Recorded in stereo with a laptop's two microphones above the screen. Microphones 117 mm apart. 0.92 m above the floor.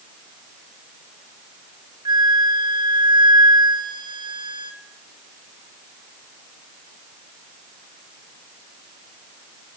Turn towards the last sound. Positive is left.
turn(degrees=-40)  # may be behind; listen again after turning